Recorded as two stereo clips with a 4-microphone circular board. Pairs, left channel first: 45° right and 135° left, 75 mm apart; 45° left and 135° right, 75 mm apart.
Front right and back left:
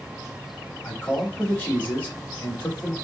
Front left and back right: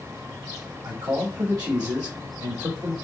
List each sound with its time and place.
0.8 s a man speaking: 110° right, 1.3 m